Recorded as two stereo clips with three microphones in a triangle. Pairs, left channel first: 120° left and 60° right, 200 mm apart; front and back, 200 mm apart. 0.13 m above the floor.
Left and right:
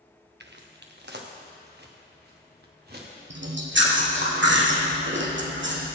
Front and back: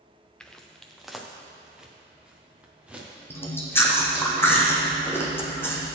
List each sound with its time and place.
0.4 s footsteps: 85° right, 1.0 m; by 4.3 s 95° right, 3.5 m
3.3 s chewing: 80° right, 1.8 m